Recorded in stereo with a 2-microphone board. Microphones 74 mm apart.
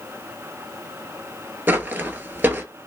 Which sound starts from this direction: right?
Footsteps, at 1.7 s.